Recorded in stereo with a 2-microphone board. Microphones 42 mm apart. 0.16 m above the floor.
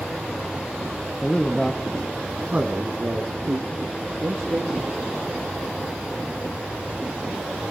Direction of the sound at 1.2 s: 25° left (ahead or behind).